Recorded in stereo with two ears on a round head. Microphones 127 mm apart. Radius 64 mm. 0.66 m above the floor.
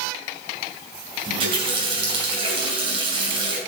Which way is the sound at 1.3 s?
40° right (ahead or behind).